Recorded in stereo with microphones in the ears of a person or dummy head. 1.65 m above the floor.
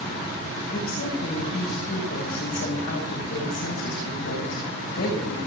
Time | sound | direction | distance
0.7 | a woman speaking | 70° left (ahead or behind) | 7.5 m